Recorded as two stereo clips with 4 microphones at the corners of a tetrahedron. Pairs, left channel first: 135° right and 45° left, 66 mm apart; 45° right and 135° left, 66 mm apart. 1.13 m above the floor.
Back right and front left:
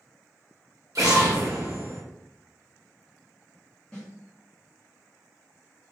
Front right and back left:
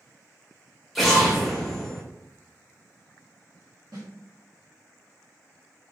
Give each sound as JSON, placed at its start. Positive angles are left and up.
{"t": 0.9, "sound": "an explosion", "azimuth_deg": 45, "distance_m": 1.0}
{"t": 3.9, "sound": "a snare drum", "azimuth_deg": 150, "distance_m": 1.3}